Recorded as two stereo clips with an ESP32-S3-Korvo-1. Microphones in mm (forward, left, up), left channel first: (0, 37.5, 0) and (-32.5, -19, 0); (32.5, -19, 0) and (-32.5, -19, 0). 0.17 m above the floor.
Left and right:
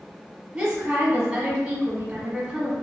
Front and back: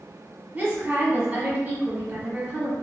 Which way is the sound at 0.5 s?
170° right.